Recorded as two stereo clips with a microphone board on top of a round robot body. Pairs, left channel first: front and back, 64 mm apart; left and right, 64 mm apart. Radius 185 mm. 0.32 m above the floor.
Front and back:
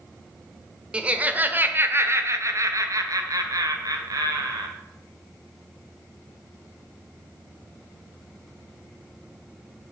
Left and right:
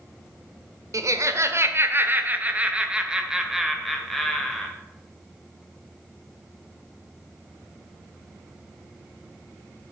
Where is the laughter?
110° right, 1.6 m; by 4.7 s 175° left, 2.5 m.